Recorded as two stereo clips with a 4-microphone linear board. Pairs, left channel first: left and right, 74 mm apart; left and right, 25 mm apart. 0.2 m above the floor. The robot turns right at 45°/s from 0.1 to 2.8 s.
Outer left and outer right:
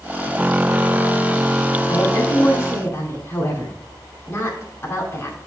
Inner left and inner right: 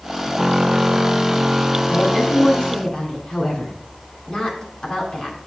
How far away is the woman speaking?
About 2.5 m.